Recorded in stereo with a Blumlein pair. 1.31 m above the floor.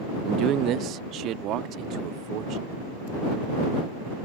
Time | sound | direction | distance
0.2 | a man speaking | 35° right | ?